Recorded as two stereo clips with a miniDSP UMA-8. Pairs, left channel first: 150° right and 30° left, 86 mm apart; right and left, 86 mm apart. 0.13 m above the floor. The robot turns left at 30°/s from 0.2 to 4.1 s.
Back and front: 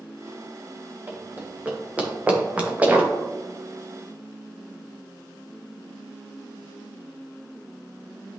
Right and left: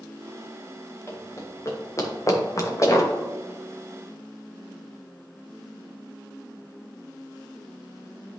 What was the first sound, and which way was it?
Running footsteps, 35° right.